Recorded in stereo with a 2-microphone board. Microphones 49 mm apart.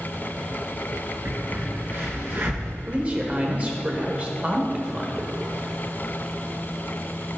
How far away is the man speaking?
About 1.2 m.